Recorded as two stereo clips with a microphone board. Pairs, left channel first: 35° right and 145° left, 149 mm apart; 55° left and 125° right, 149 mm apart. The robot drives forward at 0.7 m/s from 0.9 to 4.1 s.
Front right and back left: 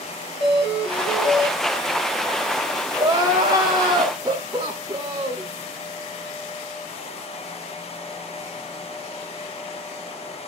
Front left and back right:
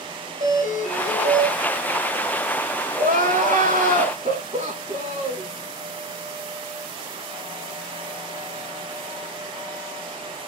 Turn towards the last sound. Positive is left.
turn(degrees=-155)